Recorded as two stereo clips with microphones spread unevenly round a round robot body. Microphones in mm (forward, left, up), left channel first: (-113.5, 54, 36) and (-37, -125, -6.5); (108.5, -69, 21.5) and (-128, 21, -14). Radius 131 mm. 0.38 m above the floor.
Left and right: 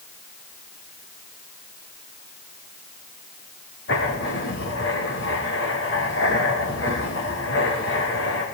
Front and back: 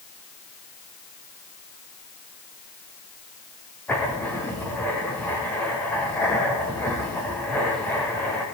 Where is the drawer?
No drawer in this recording.